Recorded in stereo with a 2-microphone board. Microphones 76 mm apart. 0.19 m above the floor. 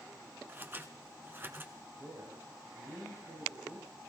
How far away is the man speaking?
About 6.5 m.